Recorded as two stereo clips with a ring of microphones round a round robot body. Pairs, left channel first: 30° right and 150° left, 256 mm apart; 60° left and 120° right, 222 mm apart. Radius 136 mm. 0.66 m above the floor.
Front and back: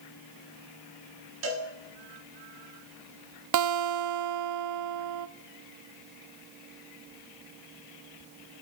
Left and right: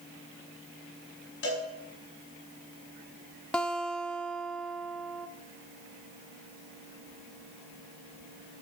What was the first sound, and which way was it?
A cowbell, 110° left.